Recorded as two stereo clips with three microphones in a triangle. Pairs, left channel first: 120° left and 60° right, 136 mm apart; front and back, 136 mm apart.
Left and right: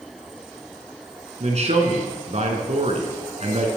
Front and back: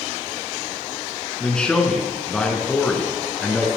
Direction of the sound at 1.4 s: 80° right.